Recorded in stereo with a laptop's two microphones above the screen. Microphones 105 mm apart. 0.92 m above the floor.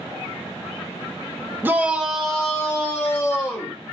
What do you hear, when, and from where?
1.6 s a shout: 20° right (ahead or behind), 0.7 m; by 3.8 s 20° left (ahead or behind), 1.6 m